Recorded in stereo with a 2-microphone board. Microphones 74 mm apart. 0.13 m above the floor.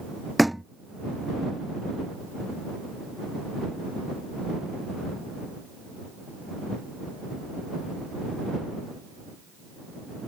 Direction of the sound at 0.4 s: Centre (ahead or behind).